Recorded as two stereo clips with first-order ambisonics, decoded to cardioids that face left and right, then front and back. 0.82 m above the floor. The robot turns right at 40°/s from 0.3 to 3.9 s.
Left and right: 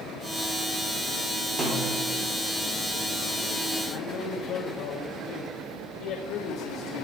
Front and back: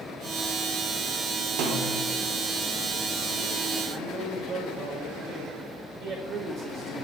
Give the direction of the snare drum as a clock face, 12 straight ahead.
5 o'clock.